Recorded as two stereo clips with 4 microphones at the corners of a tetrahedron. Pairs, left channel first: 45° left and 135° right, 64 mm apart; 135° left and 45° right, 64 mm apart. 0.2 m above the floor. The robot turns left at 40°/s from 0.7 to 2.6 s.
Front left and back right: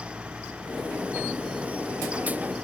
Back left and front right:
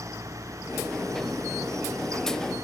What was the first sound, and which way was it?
Only background noise.